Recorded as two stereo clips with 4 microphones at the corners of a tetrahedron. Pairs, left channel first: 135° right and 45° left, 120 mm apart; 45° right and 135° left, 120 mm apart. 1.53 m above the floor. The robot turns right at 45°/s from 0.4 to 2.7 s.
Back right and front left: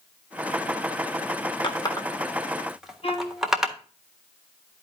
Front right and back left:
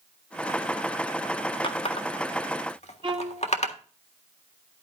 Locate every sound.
1.6 s a running tap: 90° right, 1.5 m; by 3.8 s 40° right, 1.5 m
3.0 s a violin: 175° right, 1.4 m